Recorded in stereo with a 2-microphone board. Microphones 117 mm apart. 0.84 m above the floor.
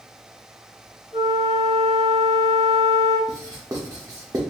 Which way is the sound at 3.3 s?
30° right (ahead or behind).